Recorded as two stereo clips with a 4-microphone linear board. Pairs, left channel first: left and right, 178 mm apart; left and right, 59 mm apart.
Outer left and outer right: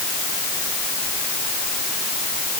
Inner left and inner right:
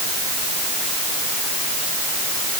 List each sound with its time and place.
Only background noise.